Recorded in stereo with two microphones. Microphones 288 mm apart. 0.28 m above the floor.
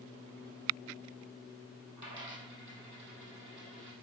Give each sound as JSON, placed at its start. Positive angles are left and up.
{"t": 2.0, "sound": "a dropped coin", "side_deg": -70, "distance_m": 2.5}